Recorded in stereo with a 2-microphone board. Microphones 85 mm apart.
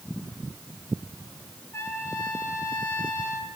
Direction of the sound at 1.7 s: 30° left (ahead or behind).